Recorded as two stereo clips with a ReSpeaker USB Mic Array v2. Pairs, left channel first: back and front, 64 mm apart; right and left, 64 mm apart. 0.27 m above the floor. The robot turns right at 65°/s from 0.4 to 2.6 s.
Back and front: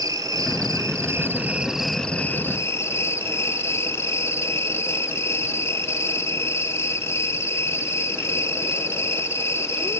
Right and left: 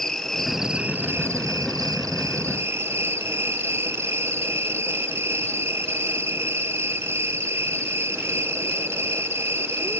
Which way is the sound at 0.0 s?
5° right.